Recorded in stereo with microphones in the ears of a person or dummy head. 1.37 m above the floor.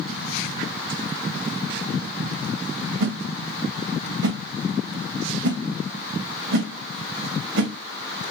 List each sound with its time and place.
3.0 s a whoosh: 65° right (ahead or behind), 1.1 m